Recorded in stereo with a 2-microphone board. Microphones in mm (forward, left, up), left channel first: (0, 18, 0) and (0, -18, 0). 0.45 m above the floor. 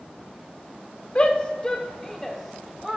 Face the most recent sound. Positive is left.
turn(degrees=-10)  # may be behind; listen again after turning